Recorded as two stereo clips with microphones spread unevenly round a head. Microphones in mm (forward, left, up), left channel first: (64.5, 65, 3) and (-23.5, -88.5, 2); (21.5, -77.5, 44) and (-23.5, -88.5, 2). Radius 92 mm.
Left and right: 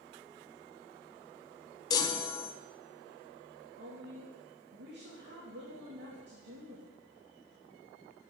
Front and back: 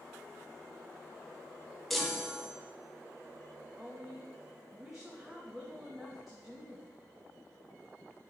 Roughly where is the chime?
Behind left.